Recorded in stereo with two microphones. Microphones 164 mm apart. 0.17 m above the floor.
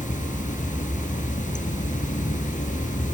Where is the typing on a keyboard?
I don't hear typing on a keyboard.